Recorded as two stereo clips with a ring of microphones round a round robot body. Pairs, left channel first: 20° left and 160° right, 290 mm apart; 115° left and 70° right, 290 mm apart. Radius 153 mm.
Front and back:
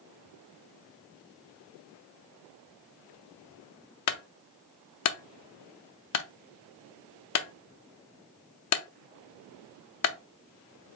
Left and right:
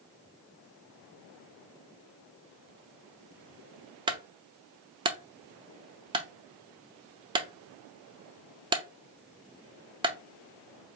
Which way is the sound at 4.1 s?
5° left.